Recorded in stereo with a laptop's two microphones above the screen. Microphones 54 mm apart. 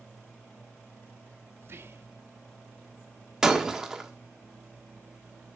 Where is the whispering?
50° right (ahead or behind), 0.5 m.